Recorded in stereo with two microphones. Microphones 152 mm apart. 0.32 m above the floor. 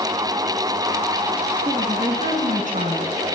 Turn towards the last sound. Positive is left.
turn(degrees=-60)  # may be behind; listen again after turning